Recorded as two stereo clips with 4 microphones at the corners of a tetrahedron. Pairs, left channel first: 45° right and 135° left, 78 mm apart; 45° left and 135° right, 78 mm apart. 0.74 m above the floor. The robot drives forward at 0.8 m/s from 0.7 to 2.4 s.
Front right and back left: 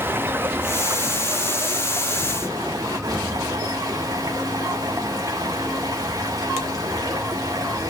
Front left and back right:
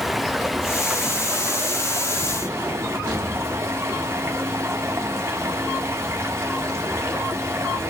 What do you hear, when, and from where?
0.0 s running water: 135° left, 0.7 m; by 7.9 s 170° left, 1.8 m